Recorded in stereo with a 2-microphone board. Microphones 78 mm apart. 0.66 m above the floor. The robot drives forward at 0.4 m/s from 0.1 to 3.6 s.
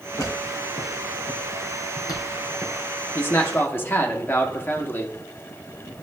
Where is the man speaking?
30° left (ahead or behind), 1.0 m.